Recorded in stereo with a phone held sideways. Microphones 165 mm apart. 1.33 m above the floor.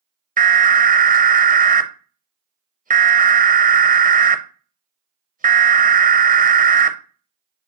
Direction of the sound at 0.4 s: 55° right (ahead or behind).